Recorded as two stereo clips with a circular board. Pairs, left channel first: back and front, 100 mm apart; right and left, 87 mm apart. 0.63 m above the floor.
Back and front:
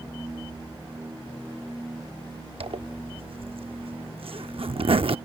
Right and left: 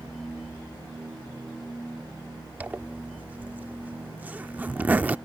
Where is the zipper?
20° left.